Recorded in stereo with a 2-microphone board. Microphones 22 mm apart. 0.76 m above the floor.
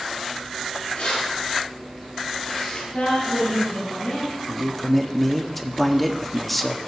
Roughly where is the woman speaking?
Left.